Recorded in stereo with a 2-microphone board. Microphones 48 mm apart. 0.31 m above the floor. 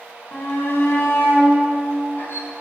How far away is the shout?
About 3 m.